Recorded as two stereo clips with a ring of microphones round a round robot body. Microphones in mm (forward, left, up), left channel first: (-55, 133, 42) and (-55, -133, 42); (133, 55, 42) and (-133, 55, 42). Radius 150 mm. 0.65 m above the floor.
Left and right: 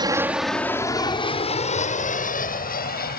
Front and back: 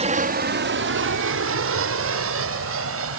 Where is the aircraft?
145° right; by 3.2 s 145° left.